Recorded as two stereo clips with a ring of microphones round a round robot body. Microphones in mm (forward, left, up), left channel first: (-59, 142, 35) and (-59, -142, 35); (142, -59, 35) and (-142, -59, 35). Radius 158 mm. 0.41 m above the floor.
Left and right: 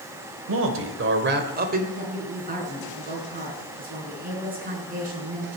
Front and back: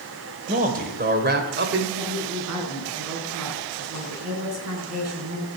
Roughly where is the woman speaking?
Behind right.